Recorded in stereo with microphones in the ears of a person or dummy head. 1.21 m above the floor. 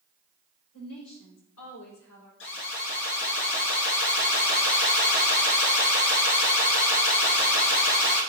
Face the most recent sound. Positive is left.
turn(degrees=65)  # may be behind; listen again after turning